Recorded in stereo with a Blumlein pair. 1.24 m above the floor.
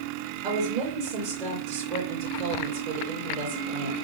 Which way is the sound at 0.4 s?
45° right.